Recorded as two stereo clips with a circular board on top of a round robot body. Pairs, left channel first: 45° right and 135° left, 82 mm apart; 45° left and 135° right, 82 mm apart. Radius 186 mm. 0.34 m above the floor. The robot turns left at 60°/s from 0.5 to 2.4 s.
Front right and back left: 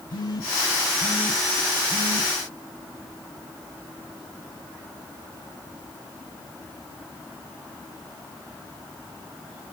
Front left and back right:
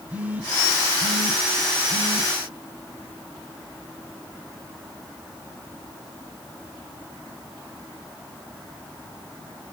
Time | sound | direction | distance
0.1 | a phone buzzing | 70° right | 2.5 m